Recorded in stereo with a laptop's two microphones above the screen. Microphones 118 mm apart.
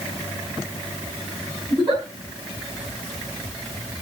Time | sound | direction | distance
1.7 | a giggle | 40° right (ahead or behind) | 7.5 m